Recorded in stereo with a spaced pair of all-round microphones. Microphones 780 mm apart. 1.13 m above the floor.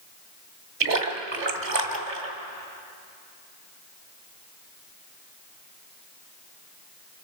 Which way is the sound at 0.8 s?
65° right (ahead or behind).